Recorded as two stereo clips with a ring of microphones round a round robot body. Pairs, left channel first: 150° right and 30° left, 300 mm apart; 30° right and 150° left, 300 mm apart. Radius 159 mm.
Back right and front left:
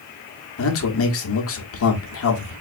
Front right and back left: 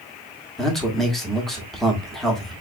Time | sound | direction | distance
0.6 | a man speaking | 120° right | 1.1 m